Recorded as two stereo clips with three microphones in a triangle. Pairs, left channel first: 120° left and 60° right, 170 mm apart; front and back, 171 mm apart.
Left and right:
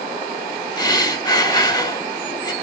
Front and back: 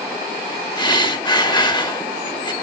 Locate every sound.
0.8 s breathing: 60° left, 0.9 m